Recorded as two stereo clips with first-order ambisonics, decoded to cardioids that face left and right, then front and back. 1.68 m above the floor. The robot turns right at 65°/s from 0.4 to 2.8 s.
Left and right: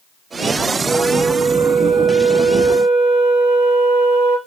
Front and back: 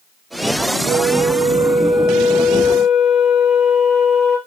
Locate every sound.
0.9 s a flute: straight behind, 4 m; by 4.4 s 55° right, 4 m